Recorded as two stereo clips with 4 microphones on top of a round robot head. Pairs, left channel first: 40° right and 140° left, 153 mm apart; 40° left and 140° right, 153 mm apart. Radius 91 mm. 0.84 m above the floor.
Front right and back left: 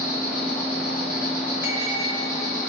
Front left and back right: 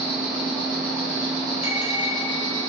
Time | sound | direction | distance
0.0 | an insect | 50° right | 1.8 m
1.6 | a bell | 70° left | 0.7 m